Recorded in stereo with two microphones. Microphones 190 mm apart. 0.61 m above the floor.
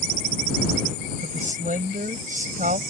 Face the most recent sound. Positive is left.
turn(degrees=-45)  # may be behind; listen again after turning